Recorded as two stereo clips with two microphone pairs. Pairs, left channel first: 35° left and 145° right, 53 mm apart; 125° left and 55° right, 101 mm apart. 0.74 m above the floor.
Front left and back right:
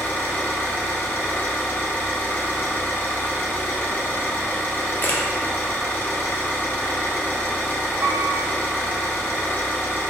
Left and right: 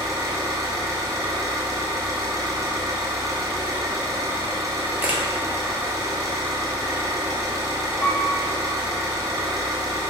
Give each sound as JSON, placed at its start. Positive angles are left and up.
{"t": 0.0, "sound": "an engine running", "azimuth_deg": -5, "distance_m": 0.9}
{"t": 5.0, "sound": "a camera shutter", "azimuth_deg": 5, "distance_m": 0.6}
{"t": 8.0, "sound": "a piano", "azimuth_deg": -150, "distance_m": 1.0}